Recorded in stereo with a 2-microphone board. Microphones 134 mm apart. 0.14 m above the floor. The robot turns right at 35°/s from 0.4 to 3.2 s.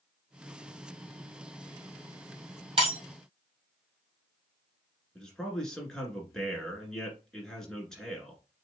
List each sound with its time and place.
2.8 s breaking glass: 45° right (ahead or behind), 2.5 m; by 3.0 s 50° right (ahead or behind), 2.5 m
5.2 s a man speaking: 5° left (ahead or behind), 1.7 m